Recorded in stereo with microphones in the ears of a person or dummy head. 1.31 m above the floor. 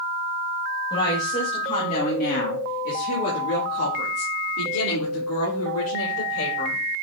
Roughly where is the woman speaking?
Left.